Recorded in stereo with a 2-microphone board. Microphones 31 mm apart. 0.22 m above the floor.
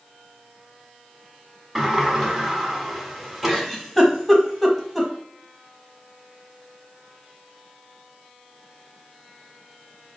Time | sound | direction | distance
1.8 | a sliding door | centre (ahead or behind) | 1.3 m
3.5 | a giggle | centre (ahead or behind) | 1.3 m